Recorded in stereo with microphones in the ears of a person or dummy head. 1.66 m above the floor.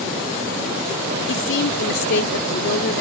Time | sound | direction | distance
1.3 | a woman speaking | 65° left (ahead or behind) | 0.7 m